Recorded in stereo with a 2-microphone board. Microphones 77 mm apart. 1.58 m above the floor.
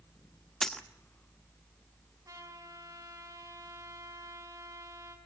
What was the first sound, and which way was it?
A dropped coin, 10° left (ahead or behind).